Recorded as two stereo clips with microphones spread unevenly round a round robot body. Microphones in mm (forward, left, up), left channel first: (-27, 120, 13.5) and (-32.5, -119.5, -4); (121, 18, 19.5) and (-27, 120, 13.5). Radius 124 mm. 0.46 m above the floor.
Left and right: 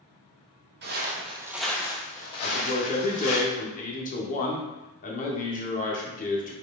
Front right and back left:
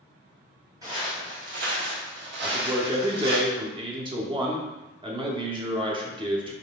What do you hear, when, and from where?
0.8 s footsteps: 135° right, 0.9 m; by 3.4 s 110° left, 1.4 m
2.4 s a man speaking: 120° left, 0.8 m